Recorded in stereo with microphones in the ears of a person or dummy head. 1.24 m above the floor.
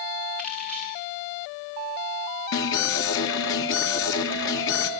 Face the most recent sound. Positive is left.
turn(degrees=65)  # may be behind; listen again after turning